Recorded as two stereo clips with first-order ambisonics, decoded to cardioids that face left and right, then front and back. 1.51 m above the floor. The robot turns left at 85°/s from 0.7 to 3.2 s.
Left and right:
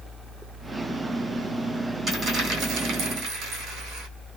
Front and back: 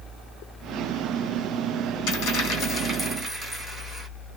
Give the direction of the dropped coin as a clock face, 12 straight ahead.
12 o'clock.